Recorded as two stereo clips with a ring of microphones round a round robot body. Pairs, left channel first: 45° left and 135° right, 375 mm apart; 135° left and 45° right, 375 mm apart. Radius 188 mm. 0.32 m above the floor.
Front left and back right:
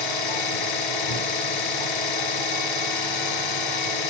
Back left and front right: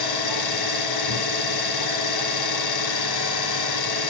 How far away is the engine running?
About 1.9 m.